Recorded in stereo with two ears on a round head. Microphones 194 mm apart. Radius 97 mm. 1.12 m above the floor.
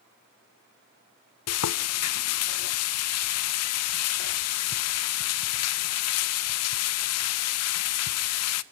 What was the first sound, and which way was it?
Frying, 80° left.